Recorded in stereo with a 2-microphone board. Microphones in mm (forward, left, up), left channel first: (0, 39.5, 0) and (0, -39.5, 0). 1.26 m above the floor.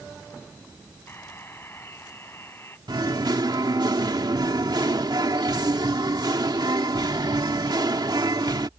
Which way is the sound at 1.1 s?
30° left (ahead or behind).